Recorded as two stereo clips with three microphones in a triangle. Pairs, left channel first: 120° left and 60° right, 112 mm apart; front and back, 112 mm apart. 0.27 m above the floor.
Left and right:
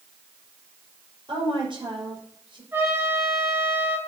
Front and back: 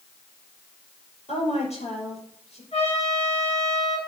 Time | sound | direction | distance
1.3 | a woman speaking | 15° right | 5 m
2.7 | a trumpet | 10° left | 4.5 m